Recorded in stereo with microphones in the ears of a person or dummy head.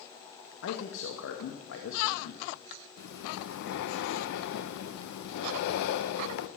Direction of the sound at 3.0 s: 60° left (ahead or behind).